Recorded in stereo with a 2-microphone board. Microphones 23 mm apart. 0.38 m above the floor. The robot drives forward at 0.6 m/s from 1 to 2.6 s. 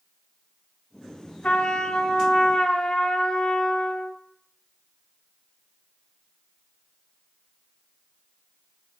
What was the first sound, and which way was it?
A trumpet, 60° left (ahead or behind).